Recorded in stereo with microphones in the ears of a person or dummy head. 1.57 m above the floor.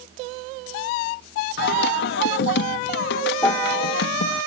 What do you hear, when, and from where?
1.6 s singing: 75° left (ahead or behind)
3.4 s a piano: 15° left (ahead or behind)